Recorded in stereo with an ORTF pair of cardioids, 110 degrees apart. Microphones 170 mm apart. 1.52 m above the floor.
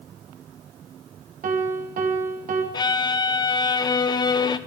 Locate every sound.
1.4 s a piano: 50° right, 1.9 m
2.7 s a violin: 25° left, 0.7 m